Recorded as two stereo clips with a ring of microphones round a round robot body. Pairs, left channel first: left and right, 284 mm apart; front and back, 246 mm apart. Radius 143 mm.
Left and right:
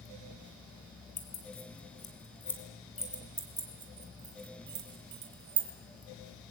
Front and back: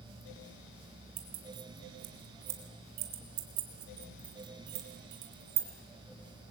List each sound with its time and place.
1.2 s keys jangling: 155° left, 4 m; by 5.7 s 130° right, 3 m